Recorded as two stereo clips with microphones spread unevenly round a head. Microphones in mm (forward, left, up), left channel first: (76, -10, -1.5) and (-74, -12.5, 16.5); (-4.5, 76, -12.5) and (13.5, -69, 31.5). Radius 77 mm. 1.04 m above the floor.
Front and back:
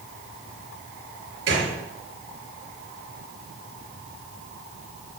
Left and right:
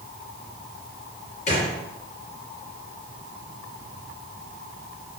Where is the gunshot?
150° left, 4 m.